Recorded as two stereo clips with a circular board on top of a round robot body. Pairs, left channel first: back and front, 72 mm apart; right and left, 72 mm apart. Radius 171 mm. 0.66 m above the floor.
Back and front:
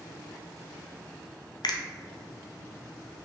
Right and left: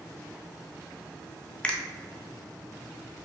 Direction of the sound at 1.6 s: 165° right.